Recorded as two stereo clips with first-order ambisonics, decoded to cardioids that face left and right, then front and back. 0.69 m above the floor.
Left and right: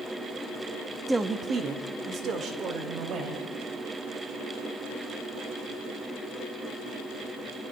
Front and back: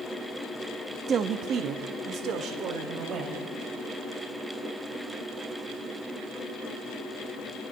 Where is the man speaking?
170° right, 0.5 m; by 3.4 s 135° right, 2.5 m.